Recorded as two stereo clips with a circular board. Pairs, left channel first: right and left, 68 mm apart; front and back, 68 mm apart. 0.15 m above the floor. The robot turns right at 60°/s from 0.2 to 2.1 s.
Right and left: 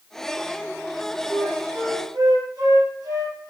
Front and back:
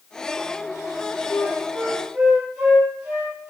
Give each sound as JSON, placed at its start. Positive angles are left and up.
{"t": 1.3, "sound": "a flute", "azimuth_deg": 55, "distance_m": 4.0}